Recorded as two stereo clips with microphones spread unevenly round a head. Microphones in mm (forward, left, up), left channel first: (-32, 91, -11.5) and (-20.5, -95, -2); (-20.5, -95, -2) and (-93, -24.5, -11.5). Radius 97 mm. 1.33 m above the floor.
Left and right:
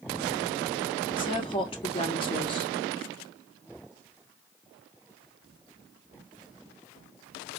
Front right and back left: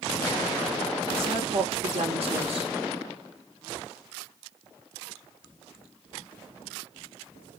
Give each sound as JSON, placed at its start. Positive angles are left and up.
{"t": 1.2, "sound": "a woman speaking", "azimuth_deg": 155, "distance_m": 1.3}